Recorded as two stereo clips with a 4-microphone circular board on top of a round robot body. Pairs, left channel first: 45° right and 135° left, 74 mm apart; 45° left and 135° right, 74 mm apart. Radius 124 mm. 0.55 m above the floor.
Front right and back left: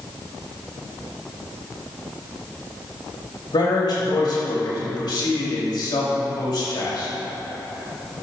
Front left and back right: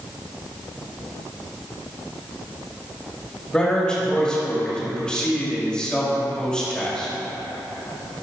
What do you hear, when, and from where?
3.5 s a man speaking: 35° right, 4 m